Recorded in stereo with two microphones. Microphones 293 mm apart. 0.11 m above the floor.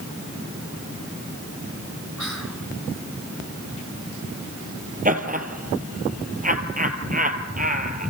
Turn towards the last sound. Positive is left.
turn(degrees=-25)  # may be behind; listen again after turning